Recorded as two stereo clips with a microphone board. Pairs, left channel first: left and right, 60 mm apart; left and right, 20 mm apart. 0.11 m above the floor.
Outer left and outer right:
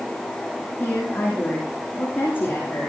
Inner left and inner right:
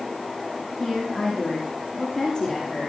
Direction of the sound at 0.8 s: 40° left (ahead or behind).